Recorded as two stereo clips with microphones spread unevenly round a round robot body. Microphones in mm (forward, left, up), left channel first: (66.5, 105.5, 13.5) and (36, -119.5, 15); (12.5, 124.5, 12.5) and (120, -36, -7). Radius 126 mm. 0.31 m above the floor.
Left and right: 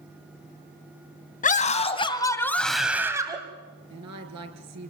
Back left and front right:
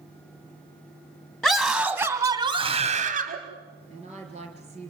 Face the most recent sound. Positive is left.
turn(degrees=-120)